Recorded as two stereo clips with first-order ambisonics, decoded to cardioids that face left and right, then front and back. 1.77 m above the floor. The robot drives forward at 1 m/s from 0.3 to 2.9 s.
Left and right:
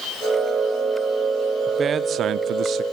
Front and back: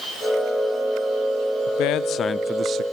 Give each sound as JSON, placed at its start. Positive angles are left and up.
{"t": 1.7, "sound": "a man speaking", "azimuth_deg": -20, "distance_m": 0.9}